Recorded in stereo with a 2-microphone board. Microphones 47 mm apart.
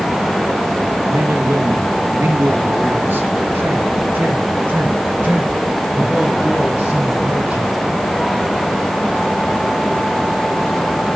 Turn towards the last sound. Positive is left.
turn(degrees=-40)  # may be behind; listen again after turning